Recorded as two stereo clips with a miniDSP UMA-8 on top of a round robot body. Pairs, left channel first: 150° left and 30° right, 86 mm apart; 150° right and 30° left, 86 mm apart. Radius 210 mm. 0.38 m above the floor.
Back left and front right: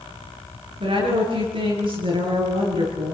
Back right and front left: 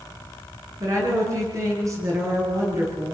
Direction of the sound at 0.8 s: 25° right.